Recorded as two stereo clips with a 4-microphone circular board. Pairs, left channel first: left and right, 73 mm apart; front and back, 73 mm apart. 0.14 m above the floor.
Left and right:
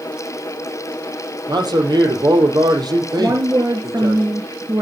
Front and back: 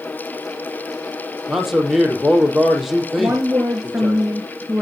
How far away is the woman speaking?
About 2 m.